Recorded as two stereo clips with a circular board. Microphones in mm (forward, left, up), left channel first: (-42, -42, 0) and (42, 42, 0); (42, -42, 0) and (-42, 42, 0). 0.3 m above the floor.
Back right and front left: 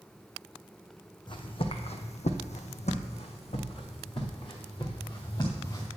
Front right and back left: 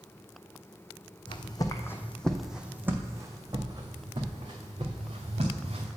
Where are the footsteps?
90° right, 0.9 m; by 5.9 s 170° left, 2.5 m.